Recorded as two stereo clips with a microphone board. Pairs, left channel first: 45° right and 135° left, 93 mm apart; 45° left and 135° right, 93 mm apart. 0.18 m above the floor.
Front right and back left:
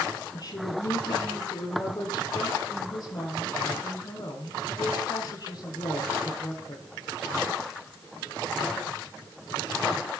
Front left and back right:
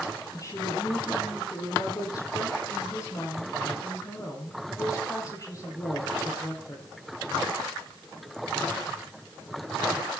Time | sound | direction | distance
0.3 | a woman speaking | 5° right | 5 m